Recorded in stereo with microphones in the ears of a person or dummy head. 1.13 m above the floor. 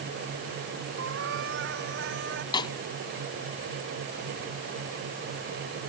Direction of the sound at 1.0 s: 60° right (ahead or behind).